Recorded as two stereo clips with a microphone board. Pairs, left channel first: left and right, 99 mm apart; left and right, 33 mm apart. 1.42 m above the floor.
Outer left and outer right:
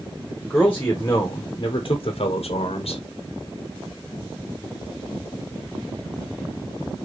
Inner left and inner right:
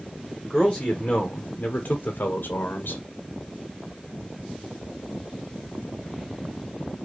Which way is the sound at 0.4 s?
15° left (ahead or behind).